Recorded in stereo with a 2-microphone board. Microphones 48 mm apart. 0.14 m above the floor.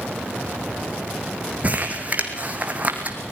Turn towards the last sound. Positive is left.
turn(degrees=-35)  # may be behind; listen again after turning